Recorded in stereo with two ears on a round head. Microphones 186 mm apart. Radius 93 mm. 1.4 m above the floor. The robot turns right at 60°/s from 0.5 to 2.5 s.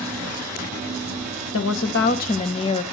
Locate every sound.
1.5 s a woman speaking: 95° left, 1.5 m; by 2.8 s 150° left, 1.5 m